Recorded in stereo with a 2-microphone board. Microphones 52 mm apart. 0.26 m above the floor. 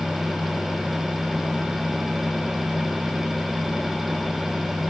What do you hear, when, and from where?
Only background noise.